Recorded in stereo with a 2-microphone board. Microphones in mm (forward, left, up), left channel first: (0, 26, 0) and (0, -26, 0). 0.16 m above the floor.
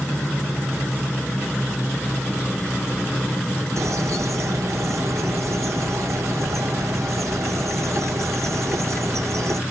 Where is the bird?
70° right (ahead or behind), 0.8 m.